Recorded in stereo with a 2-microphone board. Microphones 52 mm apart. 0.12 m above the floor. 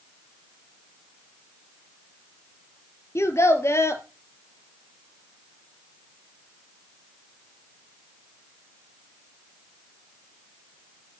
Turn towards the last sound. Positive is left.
turn(degrees=60)  # may be behind; listen again after turning